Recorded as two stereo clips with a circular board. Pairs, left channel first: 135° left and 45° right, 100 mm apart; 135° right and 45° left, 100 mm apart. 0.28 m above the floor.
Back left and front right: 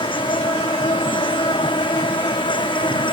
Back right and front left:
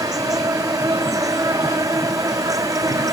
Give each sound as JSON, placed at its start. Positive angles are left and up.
{"t": 0.0, "sound": "an insect", "azimuth_deg": 100}